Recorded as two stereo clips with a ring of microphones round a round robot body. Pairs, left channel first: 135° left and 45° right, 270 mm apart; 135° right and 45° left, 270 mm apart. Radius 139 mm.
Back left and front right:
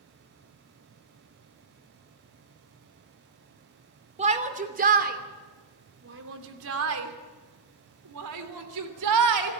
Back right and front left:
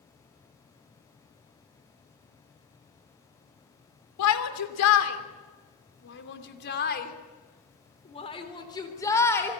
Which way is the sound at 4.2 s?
110° right.